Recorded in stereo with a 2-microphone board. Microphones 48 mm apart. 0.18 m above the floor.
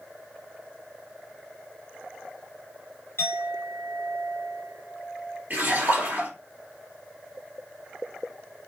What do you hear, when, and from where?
3.2 s a clink: 55° left (ahead or behind), 1.9 m
5.5 s a splash: 40° right (ahead or behind), 2 m